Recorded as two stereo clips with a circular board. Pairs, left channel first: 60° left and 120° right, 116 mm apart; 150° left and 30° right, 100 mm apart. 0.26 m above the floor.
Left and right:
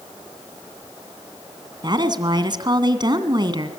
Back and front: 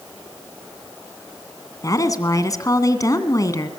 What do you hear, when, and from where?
1.8 s a woman speaking: 165° right, 2 m